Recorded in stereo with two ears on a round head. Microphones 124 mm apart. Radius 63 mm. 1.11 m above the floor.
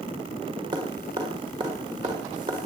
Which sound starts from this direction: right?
Dripping, at 0.7 s.